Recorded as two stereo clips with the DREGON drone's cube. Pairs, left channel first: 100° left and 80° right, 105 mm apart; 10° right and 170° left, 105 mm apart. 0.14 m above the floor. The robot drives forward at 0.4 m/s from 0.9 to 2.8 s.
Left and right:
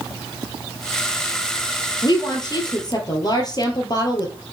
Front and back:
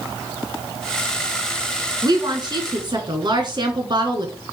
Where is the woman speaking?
130° left, 2.5 m; by 4.3 s 135° left, 2.5 m.